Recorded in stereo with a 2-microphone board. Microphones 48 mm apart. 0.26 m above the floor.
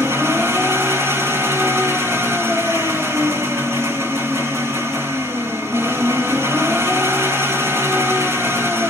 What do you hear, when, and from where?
0.0 s an engine running: 60° right (ahead or behind), 3 m